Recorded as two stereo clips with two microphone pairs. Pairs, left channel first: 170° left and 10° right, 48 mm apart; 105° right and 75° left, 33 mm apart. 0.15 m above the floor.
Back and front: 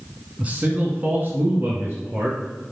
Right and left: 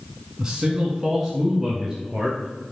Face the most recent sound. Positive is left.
turn(degrees=-15)